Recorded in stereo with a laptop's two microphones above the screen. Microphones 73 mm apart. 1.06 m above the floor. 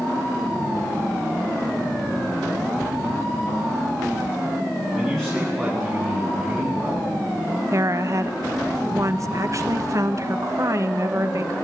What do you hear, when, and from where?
4.9 s a man speaking: 5° left (ahead or behind), 9 m; by 7.1 s 5° right (ahead or behind), 11.5 m
7.7 s a woman speaking: 45° right (ahead or behind), 1.0 m